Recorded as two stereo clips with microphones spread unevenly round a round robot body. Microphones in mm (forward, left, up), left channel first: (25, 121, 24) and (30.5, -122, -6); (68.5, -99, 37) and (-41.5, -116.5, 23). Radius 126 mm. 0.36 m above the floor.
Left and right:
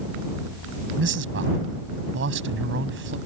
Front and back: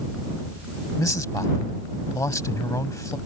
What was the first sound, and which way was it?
A man speaking, 55° right.